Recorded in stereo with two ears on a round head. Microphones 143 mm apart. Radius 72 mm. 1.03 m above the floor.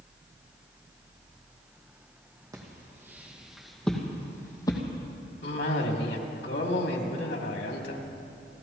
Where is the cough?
75° left (ahead or behind), 2.5 m.